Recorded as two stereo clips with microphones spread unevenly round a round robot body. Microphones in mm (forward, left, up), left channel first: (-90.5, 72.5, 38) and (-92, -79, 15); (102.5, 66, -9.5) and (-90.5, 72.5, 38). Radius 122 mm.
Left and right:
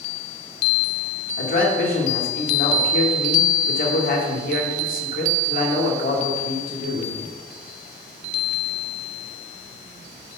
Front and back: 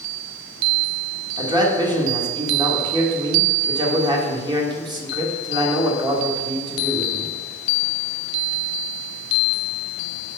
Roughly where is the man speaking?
Left.